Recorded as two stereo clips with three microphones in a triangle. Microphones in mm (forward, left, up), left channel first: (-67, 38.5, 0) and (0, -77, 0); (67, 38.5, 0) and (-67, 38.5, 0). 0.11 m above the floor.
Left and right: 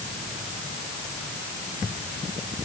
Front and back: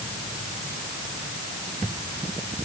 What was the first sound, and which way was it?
Only background noise.